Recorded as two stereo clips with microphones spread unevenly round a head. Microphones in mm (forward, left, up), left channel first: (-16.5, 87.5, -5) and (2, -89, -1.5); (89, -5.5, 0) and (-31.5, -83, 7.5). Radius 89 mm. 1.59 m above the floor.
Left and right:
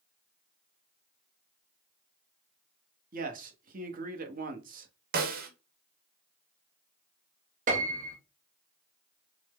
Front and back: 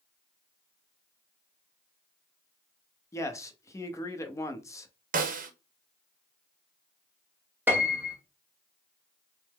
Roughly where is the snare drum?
Behind right.